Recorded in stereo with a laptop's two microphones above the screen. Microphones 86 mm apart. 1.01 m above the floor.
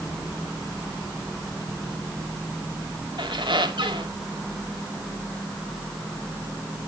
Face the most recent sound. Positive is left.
turn(degrees=-70)  # may be behind; listen again after turning